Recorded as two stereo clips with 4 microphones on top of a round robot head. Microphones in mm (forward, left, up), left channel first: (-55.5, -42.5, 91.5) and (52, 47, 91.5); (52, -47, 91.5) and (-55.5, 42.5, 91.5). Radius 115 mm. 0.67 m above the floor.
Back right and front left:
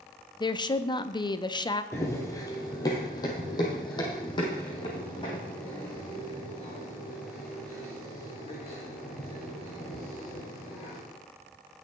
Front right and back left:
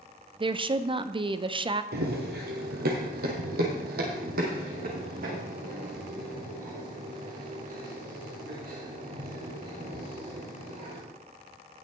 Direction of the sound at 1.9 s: 150° left.